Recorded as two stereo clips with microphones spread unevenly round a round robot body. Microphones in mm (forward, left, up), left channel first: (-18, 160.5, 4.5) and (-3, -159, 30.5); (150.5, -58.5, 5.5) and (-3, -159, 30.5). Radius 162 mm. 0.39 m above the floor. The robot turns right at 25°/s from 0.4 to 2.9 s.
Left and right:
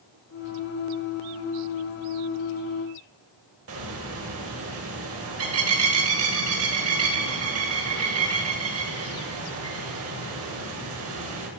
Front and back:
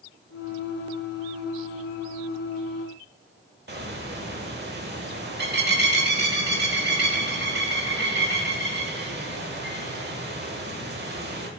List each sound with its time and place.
3.7 s a bird: 130° right, 1.7 m